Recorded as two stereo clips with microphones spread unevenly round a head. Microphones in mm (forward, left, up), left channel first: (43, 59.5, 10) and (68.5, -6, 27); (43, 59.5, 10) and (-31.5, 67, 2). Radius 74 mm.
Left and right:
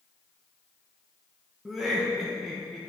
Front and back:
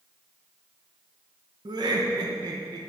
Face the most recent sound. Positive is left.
turn(degrees=-165)